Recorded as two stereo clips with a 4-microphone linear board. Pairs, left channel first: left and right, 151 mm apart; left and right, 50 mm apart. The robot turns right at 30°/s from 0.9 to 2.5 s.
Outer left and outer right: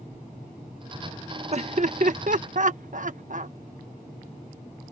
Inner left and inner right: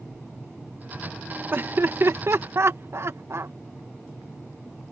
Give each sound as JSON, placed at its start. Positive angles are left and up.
{"t": 1.5, "sound": "laughter", "side_deg": -45}